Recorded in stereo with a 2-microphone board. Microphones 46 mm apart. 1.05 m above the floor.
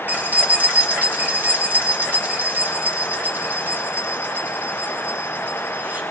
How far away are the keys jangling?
About 1.2 m.